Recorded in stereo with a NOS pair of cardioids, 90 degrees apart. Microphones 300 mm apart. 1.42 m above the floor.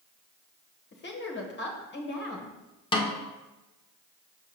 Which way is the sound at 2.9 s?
15° left.